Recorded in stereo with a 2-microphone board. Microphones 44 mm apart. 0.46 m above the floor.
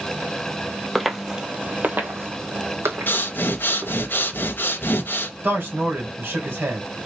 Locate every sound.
0.9 s footsteps: centre (ahead or behind), 0.6 m; by 4.0 s 75° right (ahead or behind), 1.7 m
3.1 s breathing: 55° left (ahead or behind), 0.6 m
5.4 s a man speaking: 55° right (ahead or behind), 2 m